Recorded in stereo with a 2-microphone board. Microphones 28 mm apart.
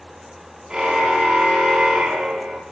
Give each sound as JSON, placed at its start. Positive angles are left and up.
{"t": 0.7, "sound": "a car horn", "side_deg": -25, "distance_m": 8.5}